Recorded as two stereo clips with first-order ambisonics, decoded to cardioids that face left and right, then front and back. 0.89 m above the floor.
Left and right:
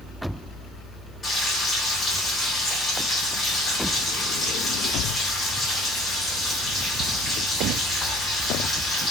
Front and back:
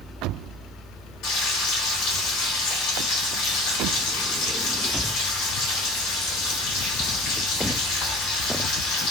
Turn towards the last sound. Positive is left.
turn(degrees=20)